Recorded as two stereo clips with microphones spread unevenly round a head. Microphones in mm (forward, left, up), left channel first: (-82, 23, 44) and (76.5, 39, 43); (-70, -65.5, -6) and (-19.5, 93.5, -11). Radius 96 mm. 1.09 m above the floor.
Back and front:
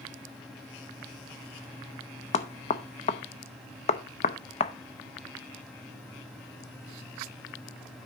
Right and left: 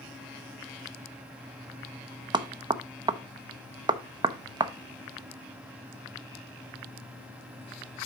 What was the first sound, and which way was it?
Knocking, 135° left.